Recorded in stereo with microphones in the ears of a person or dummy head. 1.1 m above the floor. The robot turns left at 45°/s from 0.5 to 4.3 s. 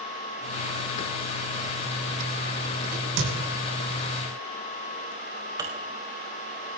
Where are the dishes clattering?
20° right (ahead or behind), 3 m.